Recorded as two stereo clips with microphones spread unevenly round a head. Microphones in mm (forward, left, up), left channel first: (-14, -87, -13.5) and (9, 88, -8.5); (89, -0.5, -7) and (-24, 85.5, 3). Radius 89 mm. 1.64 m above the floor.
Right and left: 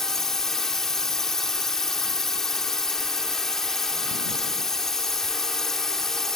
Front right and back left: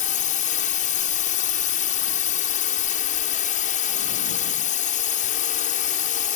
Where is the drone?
10° right.